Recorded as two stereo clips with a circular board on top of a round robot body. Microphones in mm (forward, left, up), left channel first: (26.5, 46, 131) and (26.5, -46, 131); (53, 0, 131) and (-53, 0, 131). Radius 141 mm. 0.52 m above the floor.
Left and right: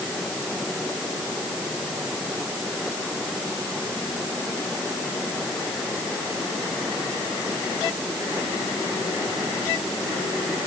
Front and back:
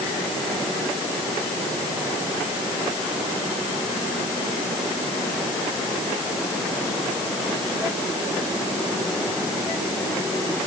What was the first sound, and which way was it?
Only background noise.